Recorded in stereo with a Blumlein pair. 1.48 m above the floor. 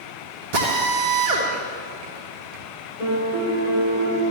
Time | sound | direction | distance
0.5 | a drill | 50° right | 2.0 m
3.0 | a piano | 70° left | 4.5 m